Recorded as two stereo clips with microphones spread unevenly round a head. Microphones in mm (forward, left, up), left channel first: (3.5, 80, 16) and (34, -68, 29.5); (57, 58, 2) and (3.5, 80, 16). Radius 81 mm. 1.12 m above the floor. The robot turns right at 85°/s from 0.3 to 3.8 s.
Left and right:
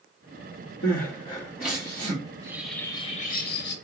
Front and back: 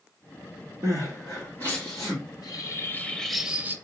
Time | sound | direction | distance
0.8 | crying | 125° left | 2.5 m
2.3 | a bird | 25° right | 0.9 m